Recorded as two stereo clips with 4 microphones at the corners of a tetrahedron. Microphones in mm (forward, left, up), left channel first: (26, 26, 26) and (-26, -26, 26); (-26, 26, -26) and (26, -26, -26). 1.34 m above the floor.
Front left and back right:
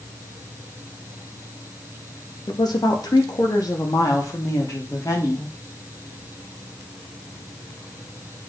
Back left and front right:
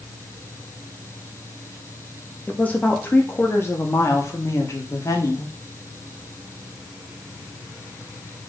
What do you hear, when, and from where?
2.5 s a woman speaking: 65° left, 2.5 m; by 5.5 s 90° left, 4.5 m